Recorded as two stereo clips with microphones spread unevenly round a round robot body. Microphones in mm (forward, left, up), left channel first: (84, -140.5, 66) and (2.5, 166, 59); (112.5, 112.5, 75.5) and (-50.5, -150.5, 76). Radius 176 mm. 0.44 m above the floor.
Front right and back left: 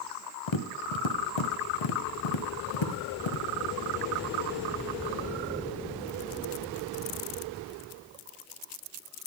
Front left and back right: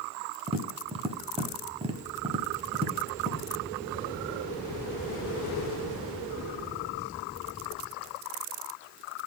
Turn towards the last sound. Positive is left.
turn(degrees=-50)